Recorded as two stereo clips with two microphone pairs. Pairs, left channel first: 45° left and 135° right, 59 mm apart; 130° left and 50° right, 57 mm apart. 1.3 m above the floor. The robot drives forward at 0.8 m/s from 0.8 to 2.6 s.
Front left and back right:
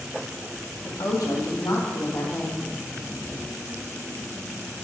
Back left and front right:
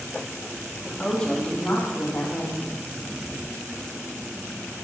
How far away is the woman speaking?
About 2 m.